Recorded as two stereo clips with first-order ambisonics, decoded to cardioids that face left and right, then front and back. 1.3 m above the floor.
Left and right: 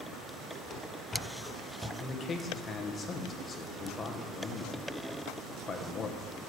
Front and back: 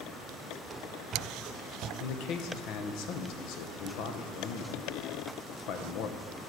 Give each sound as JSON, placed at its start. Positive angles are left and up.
{"t": 0.7, "sound": "running footsteps", "azimuth_deg": 115, "distance_m": 1.4}
{"t": 2.0, "sound": "a man speaking", "azimuth_deg": 20, "distance_m": 1.0}